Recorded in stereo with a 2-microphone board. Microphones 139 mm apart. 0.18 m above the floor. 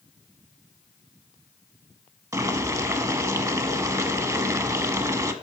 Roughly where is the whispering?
I don't hear whispering.